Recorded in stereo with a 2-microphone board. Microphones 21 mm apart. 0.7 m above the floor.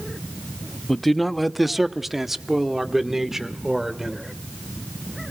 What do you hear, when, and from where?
0.9 s a man speaking: 10° left (ahead or behind), 0.6 m; by 4.3 s 20° right (ahead or behind), 2.5 m